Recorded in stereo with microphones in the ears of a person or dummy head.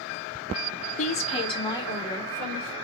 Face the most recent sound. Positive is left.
turn(degrees=10)  # may be behind; listen again after turning